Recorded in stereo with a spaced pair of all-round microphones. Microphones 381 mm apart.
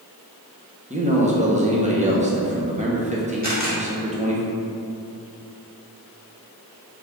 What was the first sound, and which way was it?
A man speaking, 20° right (ahead or behind).